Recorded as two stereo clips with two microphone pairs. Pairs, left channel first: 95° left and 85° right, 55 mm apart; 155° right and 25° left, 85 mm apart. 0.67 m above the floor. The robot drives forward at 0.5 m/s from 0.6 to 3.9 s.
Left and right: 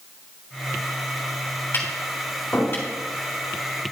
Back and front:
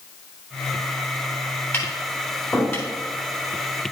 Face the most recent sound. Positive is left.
turn(degrees=150)